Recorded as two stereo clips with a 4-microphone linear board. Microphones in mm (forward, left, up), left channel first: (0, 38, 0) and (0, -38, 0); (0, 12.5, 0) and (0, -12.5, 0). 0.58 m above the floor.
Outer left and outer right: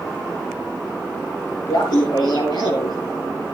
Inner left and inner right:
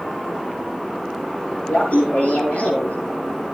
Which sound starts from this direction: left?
Laughter, at 1.7 s.